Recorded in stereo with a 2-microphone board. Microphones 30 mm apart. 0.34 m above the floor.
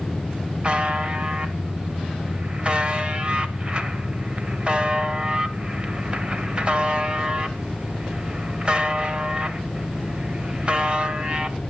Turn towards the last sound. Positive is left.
turn(degrees=-30)  # may be behind; listen again after turning